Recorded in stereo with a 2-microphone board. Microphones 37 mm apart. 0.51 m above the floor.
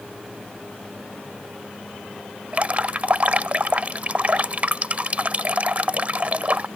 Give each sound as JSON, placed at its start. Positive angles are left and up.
{"t": 2.5, "sound": "dripping", "side_deg": -40}